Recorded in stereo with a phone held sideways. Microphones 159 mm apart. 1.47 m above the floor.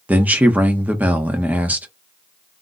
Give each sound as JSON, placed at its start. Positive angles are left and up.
{"t": 0.1, "sound": "a man speaking", "side_deg": -10, "distance_m": 0.7}